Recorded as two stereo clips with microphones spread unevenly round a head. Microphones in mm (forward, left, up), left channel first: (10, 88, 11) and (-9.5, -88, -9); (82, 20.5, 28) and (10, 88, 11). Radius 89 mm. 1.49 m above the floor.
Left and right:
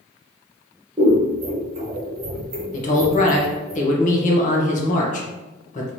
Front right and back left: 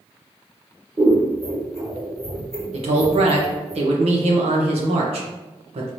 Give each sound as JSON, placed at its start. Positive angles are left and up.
{"t": 1.0, "sound": "scissors", "azimuth_deg": -160, "distance_m": 1.1}
{"t": 2.7, "sound": "a man speaking", "azimuth_deg": 135, "distance_m": 0.9}